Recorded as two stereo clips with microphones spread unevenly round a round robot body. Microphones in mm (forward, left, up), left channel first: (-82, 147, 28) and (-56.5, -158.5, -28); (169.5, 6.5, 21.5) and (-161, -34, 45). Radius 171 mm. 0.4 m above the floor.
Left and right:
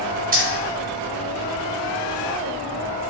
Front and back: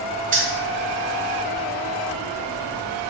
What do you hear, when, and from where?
0.3 s keys jangling: 115° right, 0.8 m